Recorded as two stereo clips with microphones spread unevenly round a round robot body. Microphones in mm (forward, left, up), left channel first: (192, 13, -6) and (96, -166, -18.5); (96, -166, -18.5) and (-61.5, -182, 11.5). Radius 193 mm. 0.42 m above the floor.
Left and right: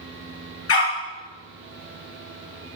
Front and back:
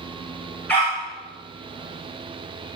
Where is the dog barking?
95° left, 2 m.